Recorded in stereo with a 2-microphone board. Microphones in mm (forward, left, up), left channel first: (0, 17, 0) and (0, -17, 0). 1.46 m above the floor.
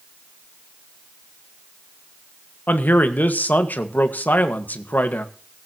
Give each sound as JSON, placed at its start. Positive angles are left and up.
{"t": 2.7, "sound": "a man speaking", "side_deg": 65, "distance_m": 1.6}